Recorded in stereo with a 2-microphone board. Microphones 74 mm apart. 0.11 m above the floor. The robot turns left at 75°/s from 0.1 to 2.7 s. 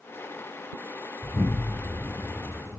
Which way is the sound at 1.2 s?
25° right (ahead or behind).